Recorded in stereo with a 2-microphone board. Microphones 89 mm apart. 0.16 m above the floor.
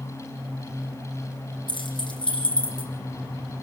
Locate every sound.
1.7 s keys jangling: 60° left (ahead or behind), 4.5 m; by 2.9 s 70° left (ahead or behind), 5.5 m